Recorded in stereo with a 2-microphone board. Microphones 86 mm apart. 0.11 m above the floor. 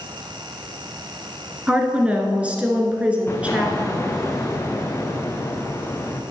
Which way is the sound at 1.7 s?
15° right (ahead or behind).